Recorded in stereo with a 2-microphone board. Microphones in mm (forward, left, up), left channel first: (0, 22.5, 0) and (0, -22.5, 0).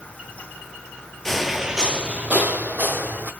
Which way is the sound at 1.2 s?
10° left (ahead or behind).